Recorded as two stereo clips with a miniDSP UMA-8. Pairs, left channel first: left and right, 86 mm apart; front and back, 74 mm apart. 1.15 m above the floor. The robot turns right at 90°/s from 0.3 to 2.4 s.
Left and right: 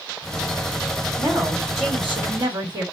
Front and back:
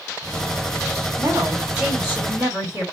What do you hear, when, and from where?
1.2 s a woman speaking: 150° right, 2 m; by 2.8 s 40° right, 2 m